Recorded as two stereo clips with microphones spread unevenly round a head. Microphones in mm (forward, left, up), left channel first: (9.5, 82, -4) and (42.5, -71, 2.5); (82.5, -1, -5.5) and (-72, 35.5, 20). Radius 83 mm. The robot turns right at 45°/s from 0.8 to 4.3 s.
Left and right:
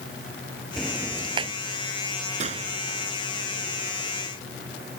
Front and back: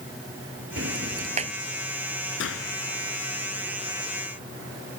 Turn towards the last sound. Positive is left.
turn(degrees=55)